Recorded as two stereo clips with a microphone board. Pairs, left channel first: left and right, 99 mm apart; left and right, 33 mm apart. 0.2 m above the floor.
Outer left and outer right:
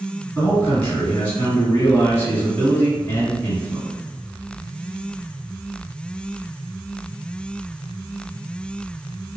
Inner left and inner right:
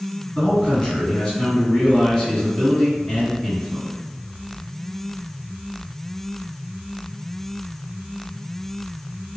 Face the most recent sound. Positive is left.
turn(degrees=20)  # may be behind; listen again after turning